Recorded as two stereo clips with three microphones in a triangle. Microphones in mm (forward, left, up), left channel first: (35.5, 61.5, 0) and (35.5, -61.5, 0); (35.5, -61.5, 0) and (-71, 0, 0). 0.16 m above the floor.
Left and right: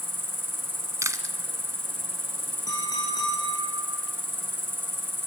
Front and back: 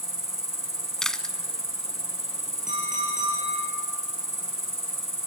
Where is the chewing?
110° right, 1.0 m.